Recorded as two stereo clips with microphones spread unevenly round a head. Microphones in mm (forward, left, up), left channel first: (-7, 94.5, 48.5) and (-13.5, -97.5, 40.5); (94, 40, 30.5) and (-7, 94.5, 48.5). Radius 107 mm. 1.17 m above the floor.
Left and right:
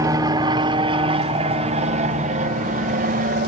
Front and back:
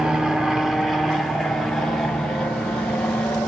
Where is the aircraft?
110° right; by 3.5 s 100° right.